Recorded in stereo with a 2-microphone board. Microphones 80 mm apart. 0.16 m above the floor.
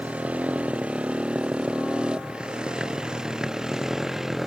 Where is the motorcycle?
15° right (ahead or behind); by 4.5 s 5° right (ahead or behind).